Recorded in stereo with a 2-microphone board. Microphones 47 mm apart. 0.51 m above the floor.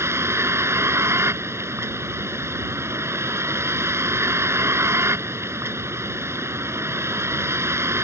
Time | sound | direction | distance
0.0 | a vehicle | 70° right (ahead or behind) | ?